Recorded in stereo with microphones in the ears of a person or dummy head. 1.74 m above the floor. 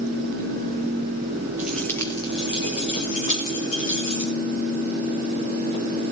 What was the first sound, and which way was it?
Keys jangling, 5° right (ahead or behind).